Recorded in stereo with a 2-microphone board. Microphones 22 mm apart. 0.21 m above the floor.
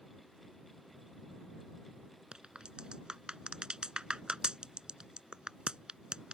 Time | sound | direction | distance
2.3 | a crack | 45° right (ahead or behind) | ?